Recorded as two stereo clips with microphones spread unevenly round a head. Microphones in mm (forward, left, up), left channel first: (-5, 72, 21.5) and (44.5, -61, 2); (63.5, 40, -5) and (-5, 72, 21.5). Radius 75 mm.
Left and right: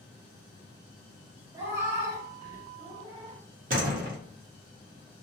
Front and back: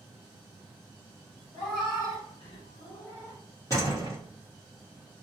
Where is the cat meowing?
5° left, 1.6 m; by 3.4 s 65° right, 1.2 m.